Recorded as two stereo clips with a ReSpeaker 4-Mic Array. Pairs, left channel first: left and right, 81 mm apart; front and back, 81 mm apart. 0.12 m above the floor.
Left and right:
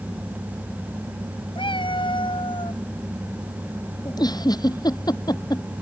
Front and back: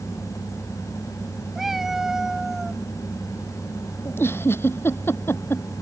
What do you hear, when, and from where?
1.6 s a cat meowing: 95° left
4.0 s a giggle: 60° left